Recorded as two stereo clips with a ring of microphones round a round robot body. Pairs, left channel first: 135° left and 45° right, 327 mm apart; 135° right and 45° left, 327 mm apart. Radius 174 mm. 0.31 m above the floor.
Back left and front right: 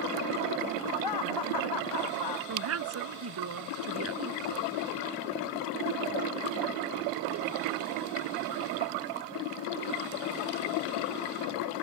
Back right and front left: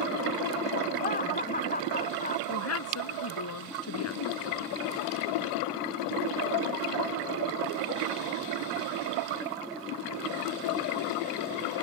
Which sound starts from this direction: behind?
Laughter, at 1.0 s.